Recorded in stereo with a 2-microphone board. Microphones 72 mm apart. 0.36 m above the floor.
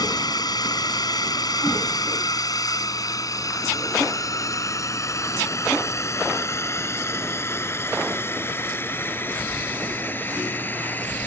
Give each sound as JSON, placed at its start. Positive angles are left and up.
{"t": 0.0, "sound": "a drone", "side_deg": 65}